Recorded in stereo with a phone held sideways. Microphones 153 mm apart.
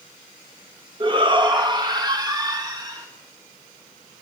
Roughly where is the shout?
Right.